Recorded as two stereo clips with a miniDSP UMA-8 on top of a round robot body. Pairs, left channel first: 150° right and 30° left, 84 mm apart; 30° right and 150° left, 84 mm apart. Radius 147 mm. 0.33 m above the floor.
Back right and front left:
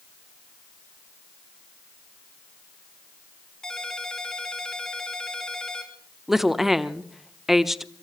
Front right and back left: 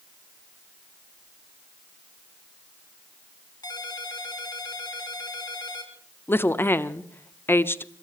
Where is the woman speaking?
50° right, 1.1 m.